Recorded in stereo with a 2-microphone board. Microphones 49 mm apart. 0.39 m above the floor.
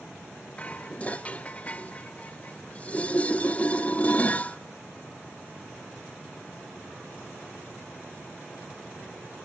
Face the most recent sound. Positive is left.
turn(degrees=30)  # may be behind; listen again after turning